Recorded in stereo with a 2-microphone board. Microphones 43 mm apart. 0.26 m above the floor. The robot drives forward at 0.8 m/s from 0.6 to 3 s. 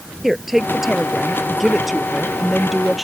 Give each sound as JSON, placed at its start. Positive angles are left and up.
{"t": 0.2, "sound": "a woman speaking", "side_deg": -10}